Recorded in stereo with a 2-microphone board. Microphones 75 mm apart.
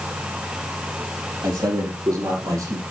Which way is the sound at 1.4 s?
65° right (ahead or behind).